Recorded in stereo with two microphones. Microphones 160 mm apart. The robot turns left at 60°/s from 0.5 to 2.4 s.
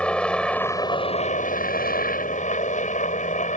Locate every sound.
0.0 s a helicopter: 175° left; by 3.6 s 60° left